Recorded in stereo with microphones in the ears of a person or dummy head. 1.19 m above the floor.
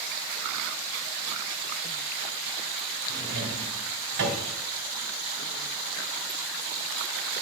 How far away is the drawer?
About 2 m.